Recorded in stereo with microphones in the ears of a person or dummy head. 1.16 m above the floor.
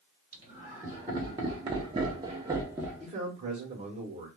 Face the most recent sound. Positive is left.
turn(degrees=-30)  # may be behind; listen again after turning